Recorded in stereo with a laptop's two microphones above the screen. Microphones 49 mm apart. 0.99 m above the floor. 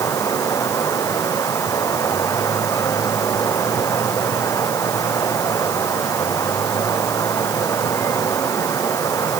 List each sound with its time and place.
0.0 s running water: 85° left